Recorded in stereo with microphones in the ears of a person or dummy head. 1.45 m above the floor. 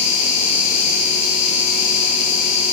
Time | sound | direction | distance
0.0 | an insect | 65° left (ahead or behind) | 1.2 m